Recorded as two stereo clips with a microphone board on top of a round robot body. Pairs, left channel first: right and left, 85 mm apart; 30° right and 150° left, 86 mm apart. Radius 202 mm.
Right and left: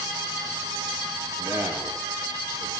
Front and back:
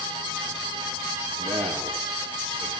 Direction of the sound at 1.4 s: 150° left.